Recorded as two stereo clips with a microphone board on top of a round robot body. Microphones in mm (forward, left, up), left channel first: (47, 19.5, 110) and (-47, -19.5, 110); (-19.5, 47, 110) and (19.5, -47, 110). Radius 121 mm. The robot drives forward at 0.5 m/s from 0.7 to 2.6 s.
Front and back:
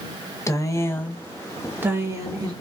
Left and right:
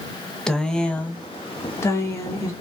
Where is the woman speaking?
35° left, 0.7 m; by 2.5 s 165° left, 0.9 m.